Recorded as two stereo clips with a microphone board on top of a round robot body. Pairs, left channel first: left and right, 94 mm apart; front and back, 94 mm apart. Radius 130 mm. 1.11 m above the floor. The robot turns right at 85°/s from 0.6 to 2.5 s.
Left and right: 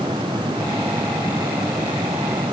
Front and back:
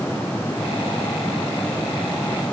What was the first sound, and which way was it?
Only background noise.